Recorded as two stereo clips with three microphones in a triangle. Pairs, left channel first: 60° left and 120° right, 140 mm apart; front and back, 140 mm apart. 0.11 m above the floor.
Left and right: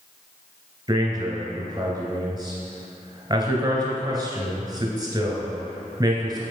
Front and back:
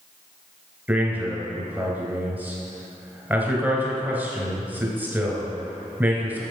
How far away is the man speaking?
About 1.7 m.